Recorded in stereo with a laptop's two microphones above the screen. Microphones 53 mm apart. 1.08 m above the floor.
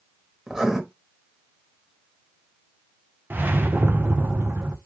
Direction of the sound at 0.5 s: 10° right (ahead or behind).